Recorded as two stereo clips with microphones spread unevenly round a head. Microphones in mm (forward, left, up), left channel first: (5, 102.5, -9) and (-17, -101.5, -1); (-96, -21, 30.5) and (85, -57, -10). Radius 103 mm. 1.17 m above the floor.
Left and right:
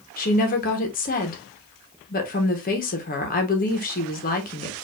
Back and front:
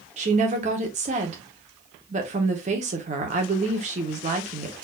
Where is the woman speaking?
35° left, 1.1 m.